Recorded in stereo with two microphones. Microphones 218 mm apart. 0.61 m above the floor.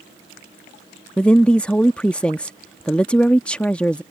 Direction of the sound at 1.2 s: 5° left (ahead or behind).